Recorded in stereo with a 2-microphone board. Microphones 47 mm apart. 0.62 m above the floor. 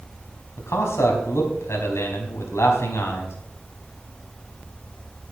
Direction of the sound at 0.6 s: 80° left.